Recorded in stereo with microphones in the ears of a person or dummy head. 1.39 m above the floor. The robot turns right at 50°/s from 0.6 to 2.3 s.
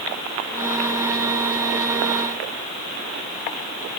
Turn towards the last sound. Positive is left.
No sound to turn to.